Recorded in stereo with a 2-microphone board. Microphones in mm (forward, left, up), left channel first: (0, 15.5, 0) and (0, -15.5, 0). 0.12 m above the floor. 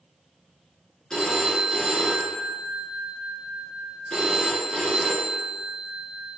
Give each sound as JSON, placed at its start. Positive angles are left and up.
{"t": 1.1, "sound": "a phone ringing", "side_deg": 20, "distance_m": 1.1}